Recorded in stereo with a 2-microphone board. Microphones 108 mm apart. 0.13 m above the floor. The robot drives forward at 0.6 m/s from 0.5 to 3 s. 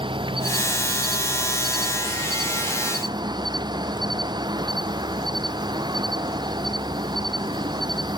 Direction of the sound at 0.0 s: 50° right (ahead or behind).